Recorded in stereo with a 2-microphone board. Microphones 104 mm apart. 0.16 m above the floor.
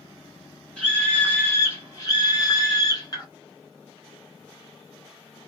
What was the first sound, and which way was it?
A scream, 10° left (ahead or behind).